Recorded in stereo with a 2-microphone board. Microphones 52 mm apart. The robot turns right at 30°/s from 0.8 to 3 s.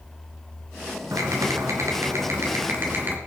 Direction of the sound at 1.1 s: 95° right.